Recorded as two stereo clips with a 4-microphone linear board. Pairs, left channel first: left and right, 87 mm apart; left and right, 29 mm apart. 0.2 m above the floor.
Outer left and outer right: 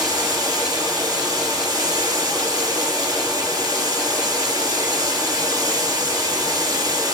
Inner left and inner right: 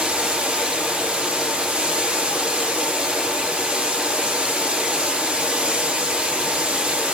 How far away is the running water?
About 2.5 m.